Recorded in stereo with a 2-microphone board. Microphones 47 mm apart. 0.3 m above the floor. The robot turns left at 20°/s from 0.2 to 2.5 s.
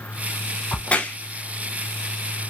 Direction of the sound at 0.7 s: 25° left (ahead or behind).